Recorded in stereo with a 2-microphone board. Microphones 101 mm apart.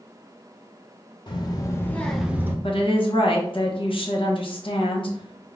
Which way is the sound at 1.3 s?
45° left (ahead or behind).